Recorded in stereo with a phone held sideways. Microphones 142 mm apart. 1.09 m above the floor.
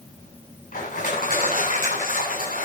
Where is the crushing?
75° left (ahead or behind), 9 m.